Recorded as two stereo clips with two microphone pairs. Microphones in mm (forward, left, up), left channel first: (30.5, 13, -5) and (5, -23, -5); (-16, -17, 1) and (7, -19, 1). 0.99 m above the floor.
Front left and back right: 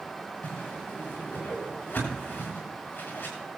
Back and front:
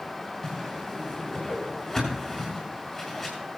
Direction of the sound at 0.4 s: 85° left.